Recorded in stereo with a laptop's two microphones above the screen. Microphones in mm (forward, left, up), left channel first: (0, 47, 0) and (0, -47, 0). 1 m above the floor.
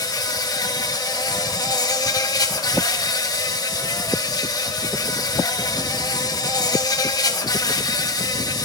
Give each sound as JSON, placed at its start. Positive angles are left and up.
{"t": 0.0, "sound": "an insect", "side_deg": 40, "distance_m": 1.4}